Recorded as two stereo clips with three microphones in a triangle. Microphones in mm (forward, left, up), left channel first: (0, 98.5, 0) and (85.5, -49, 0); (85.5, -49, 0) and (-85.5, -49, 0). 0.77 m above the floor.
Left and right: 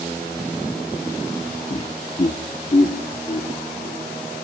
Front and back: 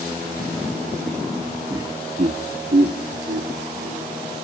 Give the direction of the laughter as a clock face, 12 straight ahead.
8 o'clock.